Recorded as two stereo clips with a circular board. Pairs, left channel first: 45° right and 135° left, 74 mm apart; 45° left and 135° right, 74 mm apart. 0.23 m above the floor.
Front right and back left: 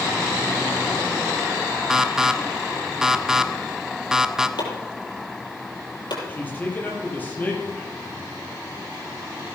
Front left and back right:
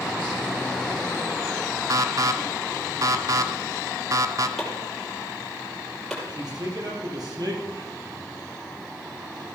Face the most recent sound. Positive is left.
turn(degrees=-110)